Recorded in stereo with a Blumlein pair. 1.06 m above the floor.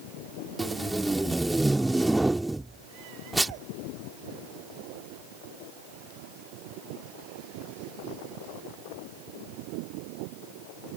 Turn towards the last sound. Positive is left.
turn(degrees=-5)